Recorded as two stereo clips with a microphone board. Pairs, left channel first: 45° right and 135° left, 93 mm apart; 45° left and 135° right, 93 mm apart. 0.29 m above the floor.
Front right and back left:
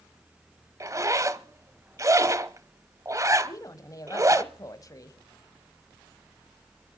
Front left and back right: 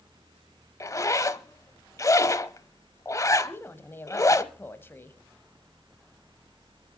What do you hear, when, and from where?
0.8 s a zipper: 90° left, 0.7 m
3.4 s a woman speaking: 15° right, 1.3 m